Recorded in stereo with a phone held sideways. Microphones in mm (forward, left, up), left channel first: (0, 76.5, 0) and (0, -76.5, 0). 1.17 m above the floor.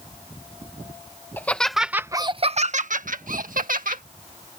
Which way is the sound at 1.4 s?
15° left (ahead or behind).